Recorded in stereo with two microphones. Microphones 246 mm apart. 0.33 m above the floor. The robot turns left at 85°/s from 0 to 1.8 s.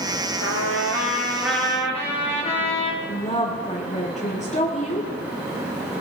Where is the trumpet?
85° right, 7.5 m; by 2.9 s 155° left, 7.5 m.